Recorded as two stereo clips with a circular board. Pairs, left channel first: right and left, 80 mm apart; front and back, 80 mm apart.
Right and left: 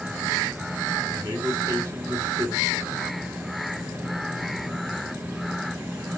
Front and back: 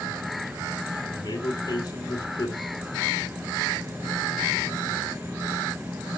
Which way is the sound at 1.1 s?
40° left.